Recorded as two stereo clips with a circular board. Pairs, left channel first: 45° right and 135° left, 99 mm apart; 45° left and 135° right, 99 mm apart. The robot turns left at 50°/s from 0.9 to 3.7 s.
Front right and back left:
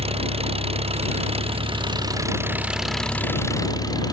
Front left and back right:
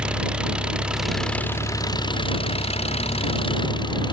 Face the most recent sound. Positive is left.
turn(degrees=5)